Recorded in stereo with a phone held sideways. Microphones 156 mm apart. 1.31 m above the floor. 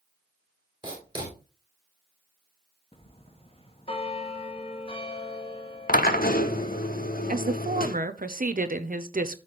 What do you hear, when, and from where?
0.8 s writing: 30° right (ahead or behind), 4 m
2.9 s a bell: 40° left (ahead or behind), 1.3 m
5.9 s a drill: 70° left (ahead or behind), 0.9 m
7.3 s a woman speaking: 65° right (ahead or behind), 0.8 m